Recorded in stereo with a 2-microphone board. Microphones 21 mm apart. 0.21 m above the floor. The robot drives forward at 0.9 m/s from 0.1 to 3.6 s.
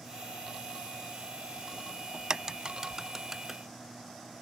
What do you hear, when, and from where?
2.1 s a crack: 40° right (ahead or behind); by 3.6 s 15° right (ahead or behind)